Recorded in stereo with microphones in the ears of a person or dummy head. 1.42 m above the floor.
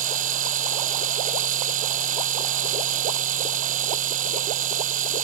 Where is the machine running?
40° right (ahead or behind).